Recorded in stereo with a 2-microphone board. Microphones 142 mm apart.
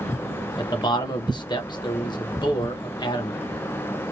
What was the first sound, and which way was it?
A man speaking, 30° left (ahead or behind).